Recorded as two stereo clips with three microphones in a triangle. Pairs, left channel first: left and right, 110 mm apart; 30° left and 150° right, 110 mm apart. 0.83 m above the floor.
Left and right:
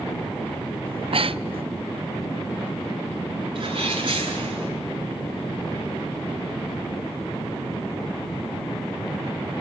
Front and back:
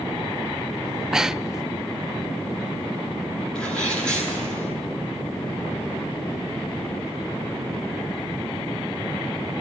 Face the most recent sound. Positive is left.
turn(degrees=-50)